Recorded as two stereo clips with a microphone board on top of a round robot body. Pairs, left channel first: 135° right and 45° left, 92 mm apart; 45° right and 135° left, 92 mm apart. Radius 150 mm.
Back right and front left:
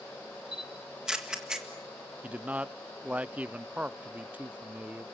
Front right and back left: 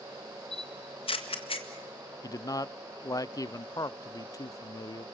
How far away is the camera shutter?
About 3 m.